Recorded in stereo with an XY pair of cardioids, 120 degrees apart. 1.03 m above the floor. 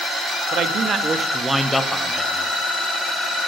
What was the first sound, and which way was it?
A man speaking, 60° right.